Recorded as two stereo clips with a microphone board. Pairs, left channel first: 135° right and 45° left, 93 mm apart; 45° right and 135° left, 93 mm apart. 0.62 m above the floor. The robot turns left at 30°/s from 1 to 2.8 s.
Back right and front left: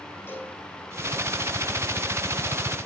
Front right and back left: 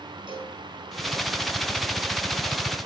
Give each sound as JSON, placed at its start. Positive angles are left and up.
{"t": 0.3, "sound": "a cowbell", "azimuth_deg": 160, "distance_m": 6.5}